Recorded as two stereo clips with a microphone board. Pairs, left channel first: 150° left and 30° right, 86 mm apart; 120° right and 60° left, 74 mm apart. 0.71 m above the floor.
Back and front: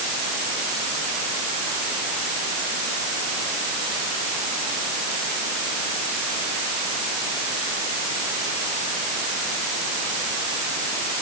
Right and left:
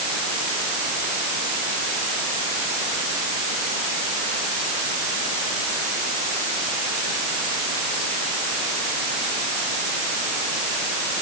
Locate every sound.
Only background noise.